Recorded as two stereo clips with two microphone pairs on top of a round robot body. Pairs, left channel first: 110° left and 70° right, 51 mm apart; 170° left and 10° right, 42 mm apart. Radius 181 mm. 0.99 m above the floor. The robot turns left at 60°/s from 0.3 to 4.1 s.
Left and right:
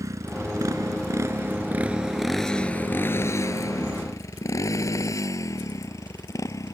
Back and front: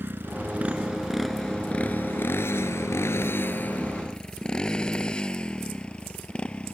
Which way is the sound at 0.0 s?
50° right.